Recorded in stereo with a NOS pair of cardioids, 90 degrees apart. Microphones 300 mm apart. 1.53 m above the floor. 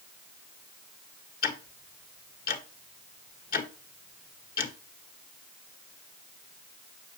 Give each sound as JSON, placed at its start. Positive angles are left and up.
{"t": 1.4, "sound": "ticking", "azimuth_deg": 30, "distance_m": 1.8}